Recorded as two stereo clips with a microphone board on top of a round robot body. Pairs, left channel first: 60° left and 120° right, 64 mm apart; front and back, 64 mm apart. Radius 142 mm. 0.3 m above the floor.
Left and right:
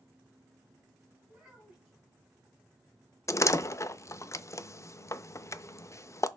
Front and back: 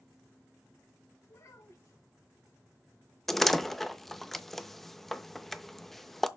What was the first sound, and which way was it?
A child speaking, 45° right.